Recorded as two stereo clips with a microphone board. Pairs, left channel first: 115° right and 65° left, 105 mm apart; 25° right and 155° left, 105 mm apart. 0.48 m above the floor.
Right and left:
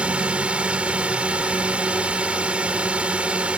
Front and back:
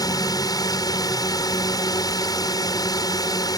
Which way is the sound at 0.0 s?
5° right.